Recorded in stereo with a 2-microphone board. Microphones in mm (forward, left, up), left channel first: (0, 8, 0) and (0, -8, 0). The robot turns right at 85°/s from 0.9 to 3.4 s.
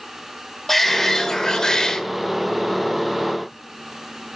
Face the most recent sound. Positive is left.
turn(degrees=-125)